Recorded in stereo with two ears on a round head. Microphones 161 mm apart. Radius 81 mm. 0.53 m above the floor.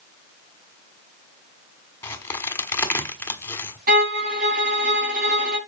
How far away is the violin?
About 5 m.